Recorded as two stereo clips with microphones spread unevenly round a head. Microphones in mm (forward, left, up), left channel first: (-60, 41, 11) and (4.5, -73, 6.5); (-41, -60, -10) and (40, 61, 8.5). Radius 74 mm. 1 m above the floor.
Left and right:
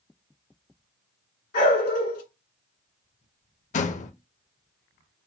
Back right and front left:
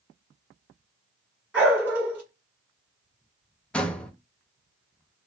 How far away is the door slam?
About 0.6 m.